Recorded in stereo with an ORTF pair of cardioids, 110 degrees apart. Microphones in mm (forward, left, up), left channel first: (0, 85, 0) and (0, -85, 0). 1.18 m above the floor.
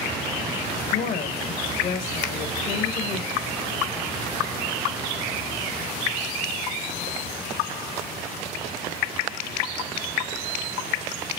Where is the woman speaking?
65° left, 2 m.